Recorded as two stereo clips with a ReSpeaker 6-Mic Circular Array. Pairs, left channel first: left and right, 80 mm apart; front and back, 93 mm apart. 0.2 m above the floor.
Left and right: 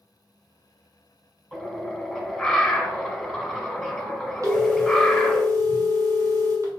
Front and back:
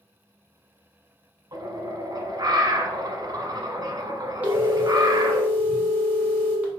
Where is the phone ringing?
115° right, 1.1 m.